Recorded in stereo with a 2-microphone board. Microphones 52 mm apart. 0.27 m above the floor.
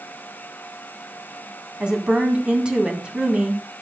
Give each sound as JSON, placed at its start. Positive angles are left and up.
{"t": 1.8, "sound": "a woman speaking", "side_deg": -15, "distance_m": 2.5}